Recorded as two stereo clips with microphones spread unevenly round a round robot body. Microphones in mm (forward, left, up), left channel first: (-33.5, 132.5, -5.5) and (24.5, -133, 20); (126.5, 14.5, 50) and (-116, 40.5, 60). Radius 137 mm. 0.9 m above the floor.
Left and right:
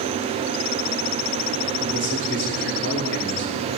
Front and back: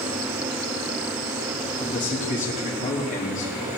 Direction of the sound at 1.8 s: 50° left.